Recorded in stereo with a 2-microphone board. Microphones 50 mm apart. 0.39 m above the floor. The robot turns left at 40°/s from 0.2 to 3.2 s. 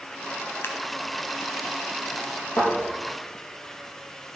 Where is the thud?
65° left (ahead or behind), 5.5 m; by 2.7 s 60° left (ahead or behind), 5.5 m.